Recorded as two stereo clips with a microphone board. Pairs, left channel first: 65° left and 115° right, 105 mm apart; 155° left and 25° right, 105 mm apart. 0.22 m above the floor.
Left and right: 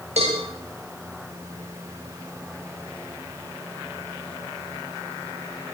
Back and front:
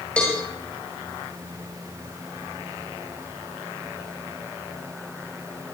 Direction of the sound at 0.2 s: 120° right.